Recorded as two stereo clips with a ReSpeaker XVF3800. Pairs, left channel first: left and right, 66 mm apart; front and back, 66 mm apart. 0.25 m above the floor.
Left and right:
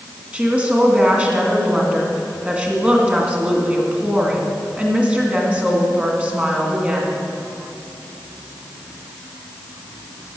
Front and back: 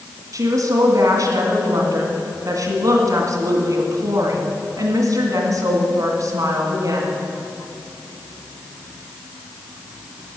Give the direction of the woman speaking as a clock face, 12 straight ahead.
5 o'clock.